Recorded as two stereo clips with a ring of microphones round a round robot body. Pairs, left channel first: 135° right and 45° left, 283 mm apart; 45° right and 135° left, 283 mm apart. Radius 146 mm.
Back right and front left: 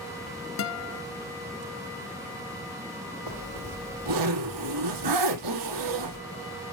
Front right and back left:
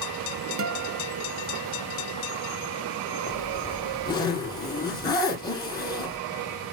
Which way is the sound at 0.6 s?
Straight behind.